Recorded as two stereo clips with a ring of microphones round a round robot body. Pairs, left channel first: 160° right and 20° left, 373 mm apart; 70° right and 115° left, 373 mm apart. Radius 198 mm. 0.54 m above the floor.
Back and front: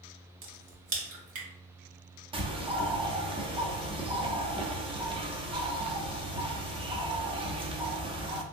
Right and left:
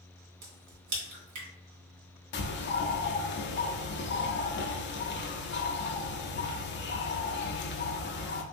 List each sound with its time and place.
0.4 s a crack: 65° left, 1.0 m
2.3 s a bird: 40° right, 0.5 m